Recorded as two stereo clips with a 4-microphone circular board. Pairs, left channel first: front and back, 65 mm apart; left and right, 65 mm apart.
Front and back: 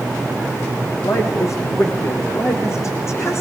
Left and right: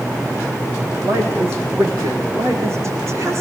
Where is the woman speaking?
40° right, 4.5 m; by 3.4 s 50° right, 5.5 m.